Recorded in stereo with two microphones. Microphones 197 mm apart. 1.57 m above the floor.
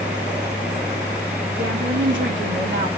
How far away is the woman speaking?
About 3 m.